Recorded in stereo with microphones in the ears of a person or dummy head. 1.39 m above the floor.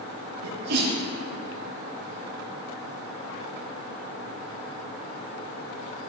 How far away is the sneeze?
About 2.5 m.